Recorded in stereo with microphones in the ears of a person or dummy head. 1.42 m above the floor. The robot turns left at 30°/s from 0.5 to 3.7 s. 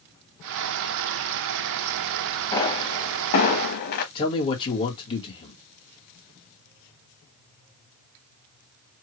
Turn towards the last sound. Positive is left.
turn(degrees=25)  # may be behind; listen again after turning